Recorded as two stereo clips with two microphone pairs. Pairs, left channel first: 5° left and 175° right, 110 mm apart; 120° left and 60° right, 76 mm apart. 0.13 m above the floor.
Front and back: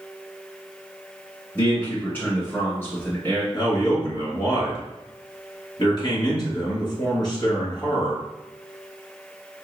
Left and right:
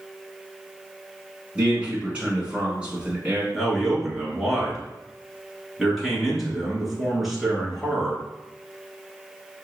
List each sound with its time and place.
1.6 s a man speaking: 20° right, 1.4 m
3.5 s a man speaking: 30° left, 1.9 m